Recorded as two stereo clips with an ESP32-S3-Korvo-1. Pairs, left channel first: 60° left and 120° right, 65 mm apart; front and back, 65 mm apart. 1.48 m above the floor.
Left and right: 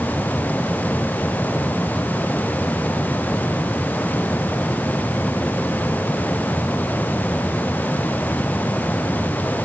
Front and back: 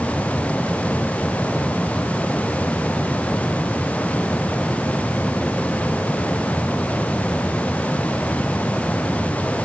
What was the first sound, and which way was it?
Only background noise.